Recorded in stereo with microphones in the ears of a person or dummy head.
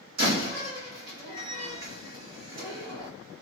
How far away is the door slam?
About 1.2 m.